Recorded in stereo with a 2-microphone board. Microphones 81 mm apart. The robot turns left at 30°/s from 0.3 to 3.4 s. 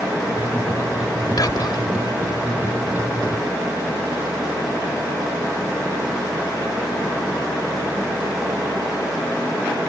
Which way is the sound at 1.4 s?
55° left (ahead or behind).